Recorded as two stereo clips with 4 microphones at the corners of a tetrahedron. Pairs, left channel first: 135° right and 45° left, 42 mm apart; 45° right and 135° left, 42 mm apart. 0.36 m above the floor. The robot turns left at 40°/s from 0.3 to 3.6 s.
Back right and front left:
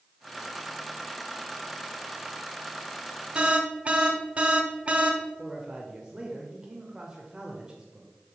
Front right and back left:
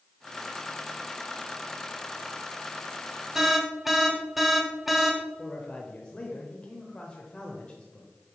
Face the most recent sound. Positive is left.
turn(degrees=-10)